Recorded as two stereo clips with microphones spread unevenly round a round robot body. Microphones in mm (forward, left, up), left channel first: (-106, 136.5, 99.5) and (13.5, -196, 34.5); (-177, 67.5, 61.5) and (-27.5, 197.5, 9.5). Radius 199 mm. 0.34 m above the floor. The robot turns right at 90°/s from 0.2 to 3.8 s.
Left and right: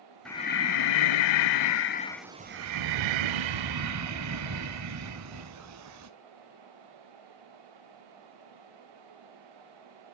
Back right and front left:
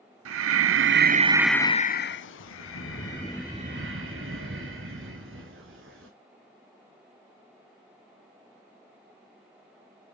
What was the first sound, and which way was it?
Breathing, 20° left.